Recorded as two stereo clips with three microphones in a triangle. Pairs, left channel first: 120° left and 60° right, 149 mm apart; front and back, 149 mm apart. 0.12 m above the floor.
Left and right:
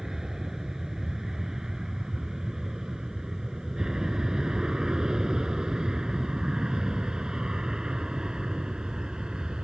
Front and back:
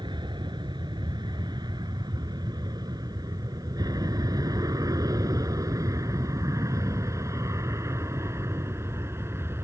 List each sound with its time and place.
0.0 s an aircraft: 145° right; by 9.6 s 135° right